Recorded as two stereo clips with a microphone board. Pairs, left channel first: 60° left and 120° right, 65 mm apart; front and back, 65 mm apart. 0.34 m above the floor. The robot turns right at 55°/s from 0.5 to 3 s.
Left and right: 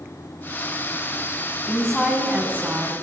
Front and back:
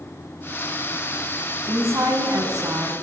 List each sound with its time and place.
1.7 s a woman speaking: 130° left, 3.5 m; by 3.0 s 160° right, 3.5 m